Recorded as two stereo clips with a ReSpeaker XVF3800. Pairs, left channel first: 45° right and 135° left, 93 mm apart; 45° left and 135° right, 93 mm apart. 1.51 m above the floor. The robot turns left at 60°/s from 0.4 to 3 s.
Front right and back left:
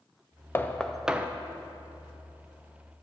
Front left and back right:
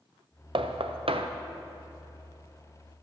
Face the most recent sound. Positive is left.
turn(degrees=105)